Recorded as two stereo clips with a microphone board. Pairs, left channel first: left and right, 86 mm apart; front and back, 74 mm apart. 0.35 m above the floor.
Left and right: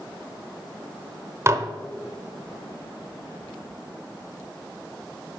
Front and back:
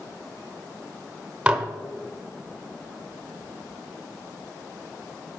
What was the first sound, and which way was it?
Dishes clattering, 115° right.